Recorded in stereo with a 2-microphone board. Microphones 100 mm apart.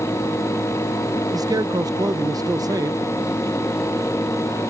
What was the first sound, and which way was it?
A man speaking, 40° right (ahead or behind).